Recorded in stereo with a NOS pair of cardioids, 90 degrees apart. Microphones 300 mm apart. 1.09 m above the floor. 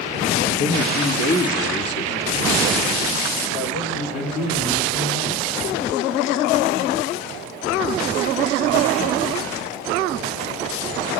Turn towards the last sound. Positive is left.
turn(degrees=60)